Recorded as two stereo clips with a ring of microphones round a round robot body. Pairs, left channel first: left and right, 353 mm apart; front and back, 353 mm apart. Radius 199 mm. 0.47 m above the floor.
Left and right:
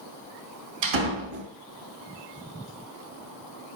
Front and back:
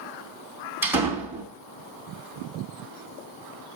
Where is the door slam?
95° right, 3.5 m.